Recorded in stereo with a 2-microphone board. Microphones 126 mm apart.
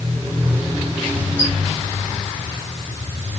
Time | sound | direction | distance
1.4 | a squeak | 65° left (ahead or behind) | 1.6 m